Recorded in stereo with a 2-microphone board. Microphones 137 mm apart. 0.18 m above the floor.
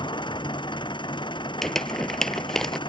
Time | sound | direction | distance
0.0 | an engine running | 35° left (ahead or behind) | ?
1.6 | crumpling | 5° left (ahead or behind) | ?